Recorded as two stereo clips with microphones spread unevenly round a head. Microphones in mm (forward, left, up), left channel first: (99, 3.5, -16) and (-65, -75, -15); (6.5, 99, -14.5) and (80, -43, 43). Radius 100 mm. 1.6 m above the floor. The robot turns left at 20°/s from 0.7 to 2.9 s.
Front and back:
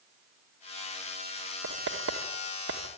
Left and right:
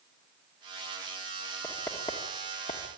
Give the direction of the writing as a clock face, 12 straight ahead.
5 o'clock.